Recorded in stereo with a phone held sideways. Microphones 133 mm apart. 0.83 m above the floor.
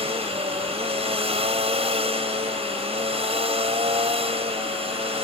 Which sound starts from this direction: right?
A machine running, at 0.0 s.